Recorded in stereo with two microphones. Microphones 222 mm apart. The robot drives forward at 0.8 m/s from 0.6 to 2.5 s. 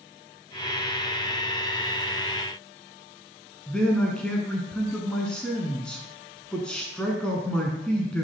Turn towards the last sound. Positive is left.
turn(degrees=5)  # may be behind; listen again after turning